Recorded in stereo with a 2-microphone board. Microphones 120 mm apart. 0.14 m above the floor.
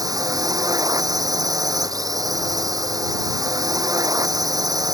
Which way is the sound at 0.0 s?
30° right (ahead or behind).